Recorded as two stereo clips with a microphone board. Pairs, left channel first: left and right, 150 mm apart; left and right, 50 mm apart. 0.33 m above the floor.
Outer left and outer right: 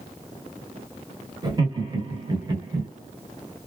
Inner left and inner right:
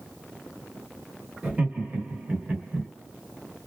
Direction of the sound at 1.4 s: 30° right (ahead or behind).